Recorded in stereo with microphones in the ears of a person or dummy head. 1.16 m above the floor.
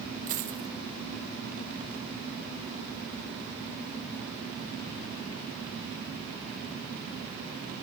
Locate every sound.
0.3 s a dropped coin: 50° right (ahead or behind), 1.4 m